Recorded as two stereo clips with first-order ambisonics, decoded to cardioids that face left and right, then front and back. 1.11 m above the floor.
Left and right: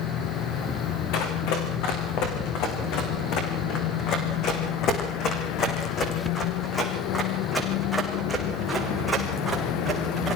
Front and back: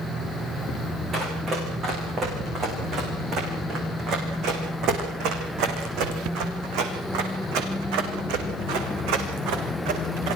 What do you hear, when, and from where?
1.1 s running footsteps: 115° left, 7 m; by 10.4 s 165° right, 6 m